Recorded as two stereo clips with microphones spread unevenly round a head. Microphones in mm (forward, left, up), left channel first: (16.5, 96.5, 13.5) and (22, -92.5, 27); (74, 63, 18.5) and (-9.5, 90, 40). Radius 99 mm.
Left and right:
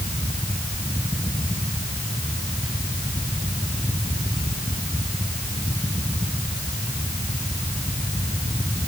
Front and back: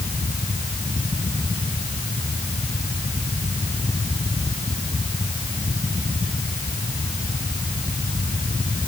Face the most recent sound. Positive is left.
No sound to turn to.